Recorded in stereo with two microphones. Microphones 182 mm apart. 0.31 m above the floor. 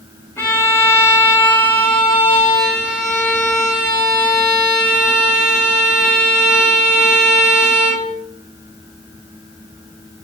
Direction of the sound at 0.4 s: 15° left (ahead or behind).